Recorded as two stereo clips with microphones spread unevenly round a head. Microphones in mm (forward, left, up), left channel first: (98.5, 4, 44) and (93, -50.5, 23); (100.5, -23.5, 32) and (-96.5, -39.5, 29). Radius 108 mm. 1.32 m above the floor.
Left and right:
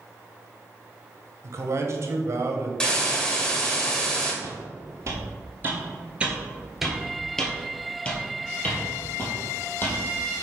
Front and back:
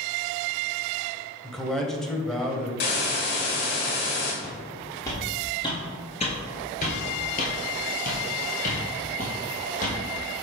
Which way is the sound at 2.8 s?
35° left.